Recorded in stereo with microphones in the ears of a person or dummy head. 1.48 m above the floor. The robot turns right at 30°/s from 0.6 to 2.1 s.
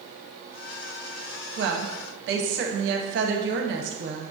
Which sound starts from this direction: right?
A woman speaking, at 1.6 s.